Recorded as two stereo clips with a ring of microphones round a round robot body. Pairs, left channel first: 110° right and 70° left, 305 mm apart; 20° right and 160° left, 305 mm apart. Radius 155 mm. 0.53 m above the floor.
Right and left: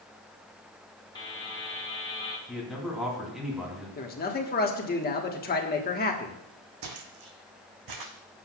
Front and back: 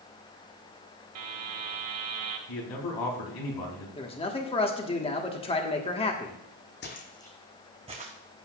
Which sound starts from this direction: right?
A man speaking, at 4.0 s.